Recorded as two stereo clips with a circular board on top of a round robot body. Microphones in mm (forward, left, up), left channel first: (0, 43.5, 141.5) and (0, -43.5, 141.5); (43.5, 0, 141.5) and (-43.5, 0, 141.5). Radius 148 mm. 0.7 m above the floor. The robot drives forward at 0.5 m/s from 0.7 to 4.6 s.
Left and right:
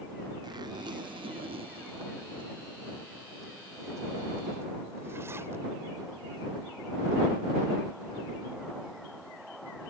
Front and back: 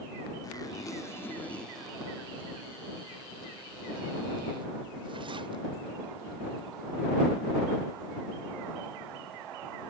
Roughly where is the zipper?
Ahead right.